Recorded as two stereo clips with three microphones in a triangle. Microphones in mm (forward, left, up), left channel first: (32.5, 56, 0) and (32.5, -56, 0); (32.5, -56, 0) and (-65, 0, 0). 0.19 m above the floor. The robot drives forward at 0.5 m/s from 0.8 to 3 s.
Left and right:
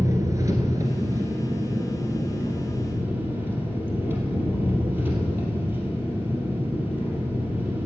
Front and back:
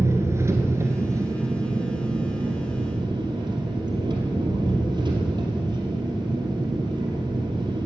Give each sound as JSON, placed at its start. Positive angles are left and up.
{"t": 0.0, "sound": "an engine running", "azimuth_deg": -145, "distance_m": 1.4}